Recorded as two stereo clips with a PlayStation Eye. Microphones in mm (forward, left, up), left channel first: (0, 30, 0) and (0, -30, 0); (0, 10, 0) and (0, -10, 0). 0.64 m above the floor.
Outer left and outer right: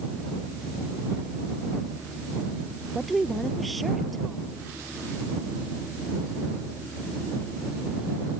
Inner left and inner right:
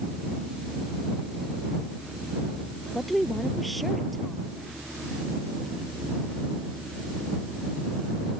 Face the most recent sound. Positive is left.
turn(degrees=0)  # may be behind; listen again after turning